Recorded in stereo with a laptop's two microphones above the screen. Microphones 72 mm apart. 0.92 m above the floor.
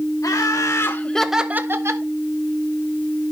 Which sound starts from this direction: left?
Laughter, at 0.2 s.